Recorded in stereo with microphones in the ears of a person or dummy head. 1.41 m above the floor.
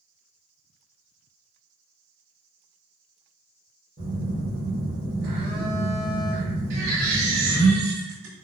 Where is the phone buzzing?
35° right (ahead or behind), 1.3 m.